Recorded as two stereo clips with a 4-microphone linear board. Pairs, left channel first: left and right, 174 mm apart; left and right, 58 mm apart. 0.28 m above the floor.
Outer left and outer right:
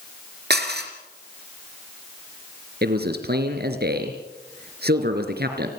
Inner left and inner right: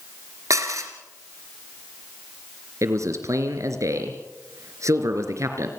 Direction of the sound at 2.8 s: 65° right (ahead or behind).